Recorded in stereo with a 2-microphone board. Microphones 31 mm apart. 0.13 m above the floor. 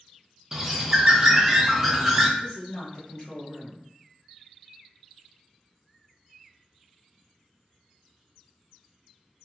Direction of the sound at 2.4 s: 30° left (ahead or behind).